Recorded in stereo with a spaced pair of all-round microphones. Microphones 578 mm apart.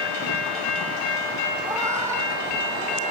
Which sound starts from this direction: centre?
A cat meowing, at 1.6 s.